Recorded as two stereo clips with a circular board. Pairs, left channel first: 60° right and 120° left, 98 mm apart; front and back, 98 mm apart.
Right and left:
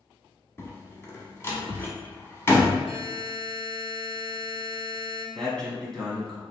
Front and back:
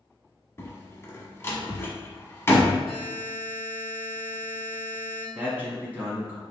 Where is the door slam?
30° right, 0.9 m.